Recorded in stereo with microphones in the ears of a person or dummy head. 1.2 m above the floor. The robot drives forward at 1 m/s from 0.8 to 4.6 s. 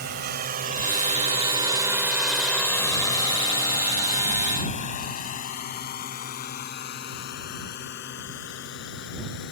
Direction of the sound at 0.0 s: 50° right (ahead or behind).